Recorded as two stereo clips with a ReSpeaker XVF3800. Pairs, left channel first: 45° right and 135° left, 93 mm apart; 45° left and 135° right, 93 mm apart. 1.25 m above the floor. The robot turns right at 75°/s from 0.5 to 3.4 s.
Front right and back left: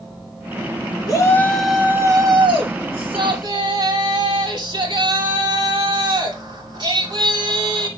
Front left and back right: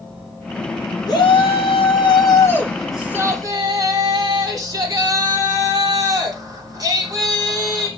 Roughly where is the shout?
Ahead.